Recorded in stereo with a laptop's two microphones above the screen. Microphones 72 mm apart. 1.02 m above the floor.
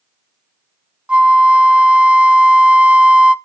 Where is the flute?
15° right (ahead or behind), 0.6 m.